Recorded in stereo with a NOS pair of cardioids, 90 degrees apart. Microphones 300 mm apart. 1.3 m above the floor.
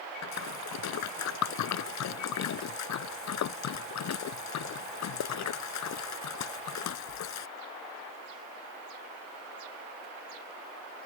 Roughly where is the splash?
Left.